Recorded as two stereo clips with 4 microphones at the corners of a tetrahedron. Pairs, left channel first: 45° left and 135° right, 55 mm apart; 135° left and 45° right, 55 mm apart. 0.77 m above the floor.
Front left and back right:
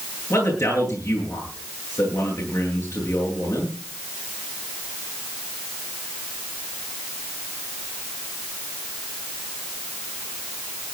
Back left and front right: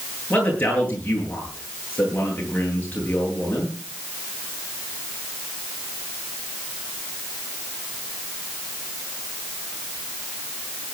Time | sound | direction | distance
0.3 | a man speaking | 70° left | 10 m